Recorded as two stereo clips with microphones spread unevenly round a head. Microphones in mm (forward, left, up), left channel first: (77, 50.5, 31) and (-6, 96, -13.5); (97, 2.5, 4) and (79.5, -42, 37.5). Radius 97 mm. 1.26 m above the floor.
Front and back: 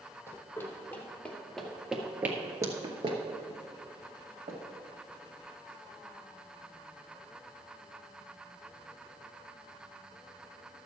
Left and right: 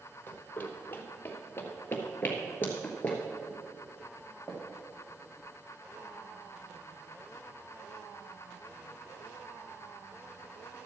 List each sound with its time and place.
0.3 s running footsteps: 5° right, 2 m; by 4.6 s 175° right, 2 m